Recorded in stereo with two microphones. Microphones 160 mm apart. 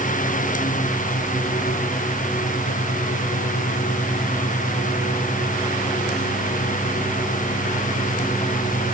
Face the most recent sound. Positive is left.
No sound to turn to.